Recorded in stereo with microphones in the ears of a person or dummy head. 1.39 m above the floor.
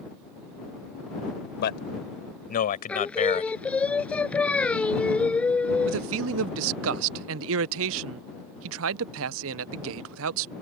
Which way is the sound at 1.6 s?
55° left (ahead or behind).